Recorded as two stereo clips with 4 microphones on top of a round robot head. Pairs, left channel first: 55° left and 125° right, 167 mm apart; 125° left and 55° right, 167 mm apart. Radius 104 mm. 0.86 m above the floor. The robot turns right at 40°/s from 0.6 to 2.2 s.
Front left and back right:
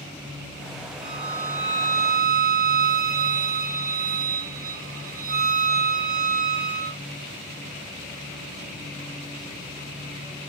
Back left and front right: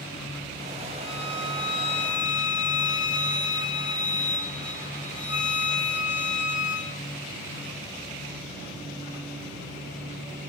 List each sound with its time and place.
1.0 s a violin: 145° right, 1.6 m; by 7.0 s 95° right, 1.6 m